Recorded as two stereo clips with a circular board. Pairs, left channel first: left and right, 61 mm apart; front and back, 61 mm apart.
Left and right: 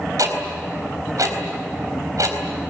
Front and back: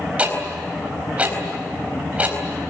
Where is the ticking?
110° right, 4 m.